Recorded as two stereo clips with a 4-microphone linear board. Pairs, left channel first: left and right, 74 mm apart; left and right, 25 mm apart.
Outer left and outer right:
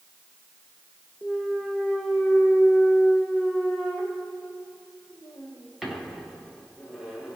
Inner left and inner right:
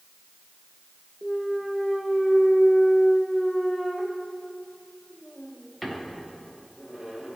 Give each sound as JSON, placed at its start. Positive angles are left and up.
{"t": 1.2, "sound": "a clunk", "side_deg": 0, "distance_m": 0.8}